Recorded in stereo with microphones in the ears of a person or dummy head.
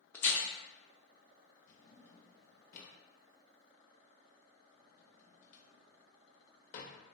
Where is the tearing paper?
10° left (ahead or behind), 0.5 m.